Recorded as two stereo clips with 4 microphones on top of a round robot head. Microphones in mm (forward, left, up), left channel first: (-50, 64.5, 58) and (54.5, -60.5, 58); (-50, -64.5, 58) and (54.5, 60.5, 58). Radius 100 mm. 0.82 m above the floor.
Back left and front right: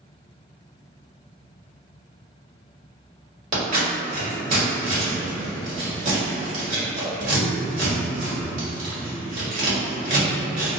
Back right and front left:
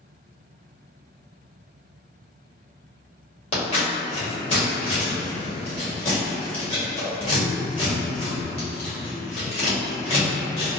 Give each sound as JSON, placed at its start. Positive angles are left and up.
{"t": 3.5, "sound": "scissors", "azimuth_deg": -80, "distance_m": 1.5}